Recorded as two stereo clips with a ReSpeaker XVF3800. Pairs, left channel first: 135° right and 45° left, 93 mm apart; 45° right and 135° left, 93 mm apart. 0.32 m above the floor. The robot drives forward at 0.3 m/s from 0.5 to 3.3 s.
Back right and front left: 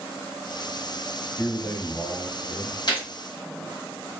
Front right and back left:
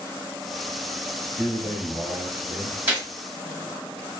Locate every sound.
1.4 s a man speaking: 160° right, 0.9 m; by 2.8 s 170° right, 1.2 m
2.9 s a gunshot: 160° right, 1.5 m